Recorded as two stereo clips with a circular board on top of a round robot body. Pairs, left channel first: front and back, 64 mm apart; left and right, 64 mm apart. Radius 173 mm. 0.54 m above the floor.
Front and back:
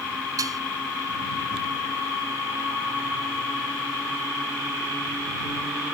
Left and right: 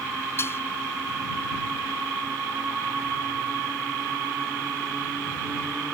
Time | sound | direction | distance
0.4 | dishes clattering | 145° left | ?